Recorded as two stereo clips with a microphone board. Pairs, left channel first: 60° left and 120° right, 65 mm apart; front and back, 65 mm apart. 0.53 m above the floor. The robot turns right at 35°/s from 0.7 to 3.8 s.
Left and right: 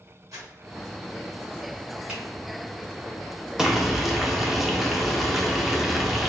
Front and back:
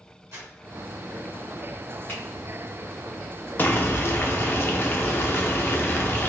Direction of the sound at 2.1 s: 50° right.